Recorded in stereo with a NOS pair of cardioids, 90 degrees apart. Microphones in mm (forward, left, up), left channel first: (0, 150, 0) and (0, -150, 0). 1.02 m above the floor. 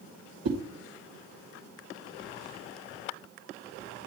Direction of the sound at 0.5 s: 55° right.